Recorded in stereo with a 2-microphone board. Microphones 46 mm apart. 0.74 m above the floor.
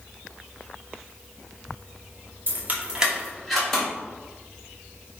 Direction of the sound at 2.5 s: 50° right (ahead or behind).